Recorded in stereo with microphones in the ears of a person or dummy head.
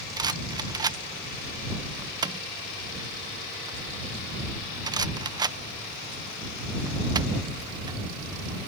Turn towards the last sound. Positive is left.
turn(degrees=-20)  # may be behind; listen again after turning